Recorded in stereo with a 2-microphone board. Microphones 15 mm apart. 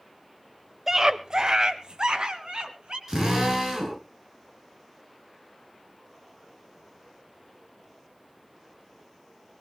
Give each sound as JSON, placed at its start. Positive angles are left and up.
{"t": 0.9, "sound": "a scream", "side_deg": -30, "distance_m": 0.9}
{"t": 3.1, "sound": "a drill", "side_deg": -40, "distance_m": 6.0}